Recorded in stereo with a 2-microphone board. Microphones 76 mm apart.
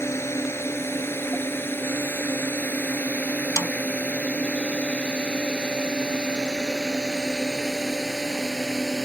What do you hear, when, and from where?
0.0 s a drone: 35° left (ahead or behind); by 9.1 s centre (ahead or behind)
3.6 s a snare drum: 40° left (ahead or behind)